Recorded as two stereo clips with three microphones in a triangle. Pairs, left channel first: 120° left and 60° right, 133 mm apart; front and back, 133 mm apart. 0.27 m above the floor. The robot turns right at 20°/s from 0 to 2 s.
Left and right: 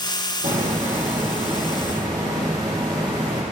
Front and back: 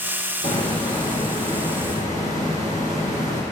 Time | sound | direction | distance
0.4 | a hiss | 40° right | 4 m